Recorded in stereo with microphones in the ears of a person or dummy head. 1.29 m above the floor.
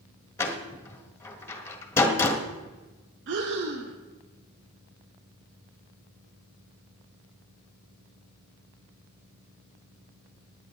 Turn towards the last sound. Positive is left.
turn(degrees=-65)  # may be behind; listen again after turning